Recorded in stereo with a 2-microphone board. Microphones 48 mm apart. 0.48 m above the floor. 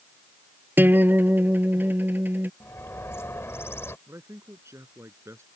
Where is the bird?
65° left (ahead or behind).